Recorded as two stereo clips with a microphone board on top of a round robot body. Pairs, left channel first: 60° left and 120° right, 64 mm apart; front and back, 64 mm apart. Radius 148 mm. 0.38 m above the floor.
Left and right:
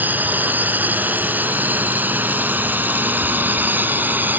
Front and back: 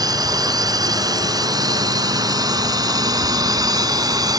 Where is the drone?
Straight behind.